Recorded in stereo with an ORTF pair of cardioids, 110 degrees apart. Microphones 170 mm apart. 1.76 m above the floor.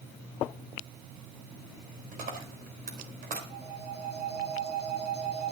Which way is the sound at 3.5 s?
70° right.